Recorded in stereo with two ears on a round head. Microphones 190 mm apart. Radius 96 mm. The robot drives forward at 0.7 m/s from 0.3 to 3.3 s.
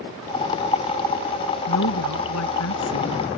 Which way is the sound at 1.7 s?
85° left.